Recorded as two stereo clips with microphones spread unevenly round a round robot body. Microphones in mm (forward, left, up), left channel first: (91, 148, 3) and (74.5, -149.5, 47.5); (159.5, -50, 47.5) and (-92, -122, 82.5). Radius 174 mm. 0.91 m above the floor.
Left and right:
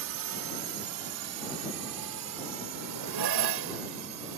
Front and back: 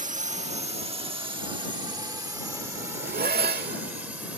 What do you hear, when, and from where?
0.0 s a drone: 105° right; by 4.4 s 80° right
2.7 s a zipper: 110° right